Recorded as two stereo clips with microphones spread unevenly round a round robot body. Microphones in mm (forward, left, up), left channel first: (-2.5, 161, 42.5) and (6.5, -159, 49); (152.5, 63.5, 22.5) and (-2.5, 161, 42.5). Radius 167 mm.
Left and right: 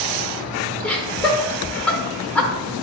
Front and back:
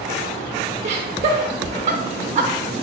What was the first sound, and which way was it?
Laughter, 175° left.